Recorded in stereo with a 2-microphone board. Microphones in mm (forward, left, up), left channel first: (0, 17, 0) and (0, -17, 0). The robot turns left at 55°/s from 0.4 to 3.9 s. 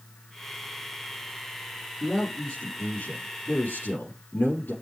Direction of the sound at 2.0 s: 175° right.